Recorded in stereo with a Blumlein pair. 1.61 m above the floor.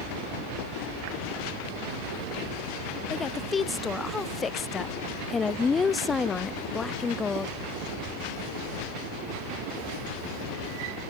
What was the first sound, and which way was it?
A woman speaking, 15° left.